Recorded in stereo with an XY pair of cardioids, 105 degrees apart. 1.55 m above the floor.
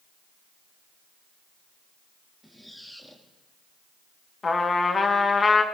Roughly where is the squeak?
Ahead.